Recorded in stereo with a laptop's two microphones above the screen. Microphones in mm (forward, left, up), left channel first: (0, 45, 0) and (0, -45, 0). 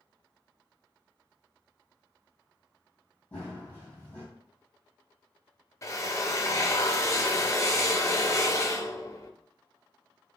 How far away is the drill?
About 0.7 m.